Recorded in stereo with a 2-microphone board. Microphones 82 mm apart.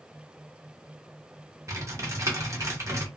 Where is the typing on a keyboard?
35° right (ahead or behind), 1.1 m.